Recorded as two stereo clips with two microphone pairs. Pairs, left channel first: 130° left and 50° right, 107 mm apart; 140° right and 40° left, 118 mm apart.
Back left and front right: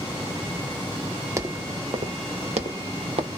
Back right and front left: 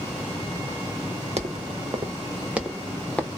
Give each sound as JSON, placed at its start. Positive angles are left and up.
{"t": 1.4, "sound": "footsteps", "azimuth_deg": 15, "distance_m": 0.9}